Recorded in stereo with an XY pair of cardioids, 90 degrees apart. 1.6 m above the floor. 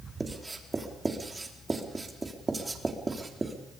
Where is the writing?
25° right, 4 m.